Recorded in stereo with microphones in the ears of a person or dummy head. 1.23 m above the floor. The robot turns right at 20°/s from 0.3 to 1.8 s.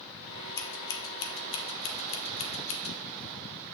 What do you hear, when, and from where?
0.6 s scissors: 20° left (ahead or behind), 1.2 m; by 3.0 s 40° left (ahead or behind), 1.2 m